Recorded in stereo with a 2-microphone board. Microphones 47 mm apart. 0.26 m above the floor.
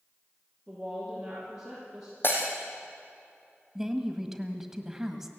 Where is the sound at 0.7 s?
Centre (ahead or behind), 8.5 m; by 2.1 s 10° right (ahead or behind), 8 m.